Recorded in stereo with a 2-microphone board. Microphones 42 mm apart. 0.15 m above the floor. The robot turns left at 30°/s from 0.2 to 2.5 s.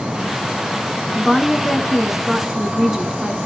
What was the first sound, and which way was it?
A woman speaking, centre (ahead or behind).